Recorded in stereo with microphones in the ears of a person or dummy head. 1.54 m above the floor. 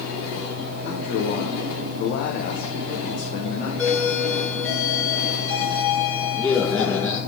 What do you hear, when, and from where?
0.8 s a man speaking: 40° left (ahead or behind), 1.7 m
3.8 s a doorbell: 20° left (ahead or behind), 3 m